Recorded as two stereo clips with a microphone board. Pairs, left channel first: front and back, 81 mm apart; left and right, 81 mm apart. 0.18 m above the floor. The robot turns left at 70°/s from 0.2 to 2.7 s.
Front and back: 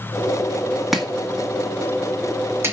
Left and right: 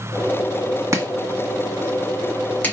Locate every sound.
0.9 s chopping: 95° right, 1.6 m; by 2.7 s 145° left, 1.6 m